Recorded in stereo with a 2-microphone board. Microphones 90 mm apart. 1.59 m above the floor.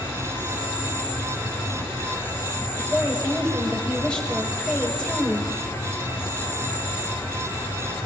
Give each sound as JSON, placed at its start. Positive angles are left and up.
{"t": 0.0, "sound": "an insect", "side_deg": 25, "distance_m": 5.5}
{"t": 2.8, "sound": "a woman speaking", "side_deg": 10, "distance_m": 6.5}